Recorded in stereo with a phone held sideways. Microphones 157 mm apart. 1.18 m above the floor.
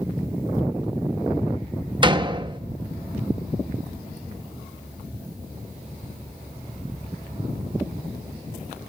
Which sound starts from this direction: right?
A door slam, at 2.0 s.